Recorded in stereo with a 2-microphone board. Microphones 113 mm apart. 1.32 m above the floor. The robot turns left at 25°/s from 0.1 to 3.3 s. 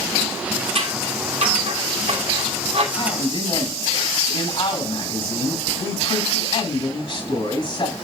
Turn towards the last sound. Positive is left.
turn(degrees=50)  # may be behind; listen again after turning